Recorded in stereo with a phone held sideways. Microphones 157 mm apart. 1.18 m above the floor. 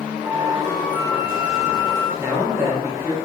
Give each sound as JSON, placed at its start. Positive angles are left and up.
{"t": 0.2, "sound": "a flute", "side_deg": -10, "distance_m": 1.2}
{"t": 2.2, "sound": "a man speaking", "side_deg": -15, "distance_m": 0.9}